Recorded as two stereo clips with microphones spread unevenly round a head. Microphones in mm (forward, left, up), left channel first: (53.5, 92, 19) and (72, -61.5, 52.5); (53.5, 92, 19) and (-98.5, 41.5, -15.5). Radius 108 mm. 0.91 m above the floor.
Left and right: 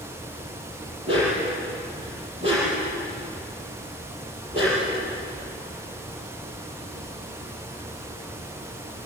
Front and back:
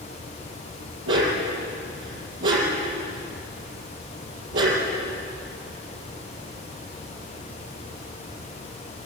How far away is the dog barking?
About 7 m.